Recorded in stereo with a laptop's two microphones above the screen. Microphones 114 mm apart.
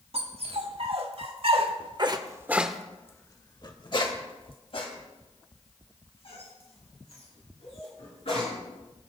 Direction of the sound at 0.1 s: 65° right (ahead or behind).